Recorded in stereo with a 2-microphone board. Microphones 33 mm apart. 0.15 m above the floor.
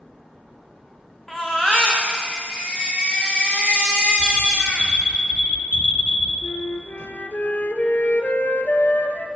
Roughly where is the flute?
Left.